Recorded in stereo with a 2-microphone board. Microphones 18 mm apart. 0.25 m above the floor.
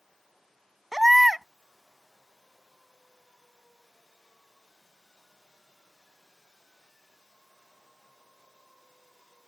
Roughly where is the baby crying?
Centre.